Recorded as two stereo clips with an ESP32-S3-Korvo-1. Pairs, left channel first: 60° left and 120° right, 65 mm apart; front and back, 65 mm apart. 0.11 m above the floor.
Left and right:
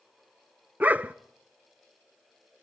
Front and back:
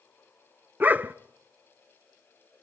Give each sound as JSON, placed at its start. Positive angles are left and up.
{"t": 0.8, "sound": "a dog barking", "azimuth_deg": -155, "distance_m": 0.6}